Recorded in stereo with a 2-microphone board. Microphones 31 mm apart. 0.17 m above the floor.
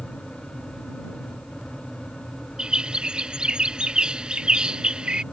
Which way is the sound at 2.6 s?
35° right (ahead or behind).